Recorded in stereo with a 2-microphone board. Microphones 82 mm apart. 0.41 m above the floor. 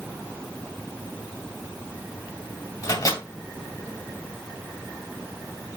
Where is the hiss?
I don't hear a hiss.